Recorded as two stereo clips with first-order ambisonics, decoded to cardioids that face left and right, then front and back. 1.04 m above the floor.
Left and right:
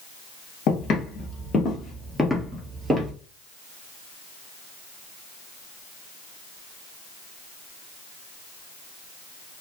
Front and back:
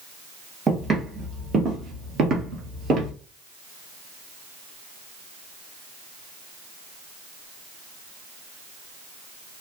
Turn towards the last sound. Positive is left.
turn(degrees=-145)